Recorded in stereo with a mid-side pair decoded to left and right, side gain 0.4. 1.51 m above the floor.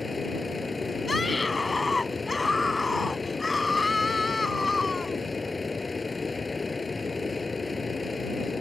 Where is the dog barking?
I don't hear a dog barking.